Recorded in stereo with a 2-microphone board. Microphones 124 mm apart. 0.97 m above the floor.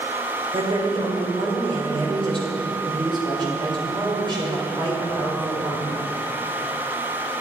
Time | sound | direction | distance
0.5 | a woman speaking | 40° right (ahead or behind) | 3.5 m